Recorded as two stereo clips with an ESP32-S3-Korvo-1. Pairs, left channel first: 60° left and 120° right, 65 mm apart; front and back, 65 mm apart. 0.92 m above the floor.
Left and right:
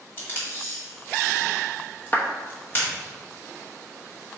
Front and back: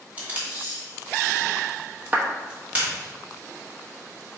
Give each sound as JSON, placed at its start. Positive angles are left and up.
{"t": 0.2, "sound": "tape being pulled", "azimuth_deg": 115, "distance_m": 2.5}
{"t": 2.1, "sound": "a clap", "azimuth_deg": 115, "distance_m": 1.1}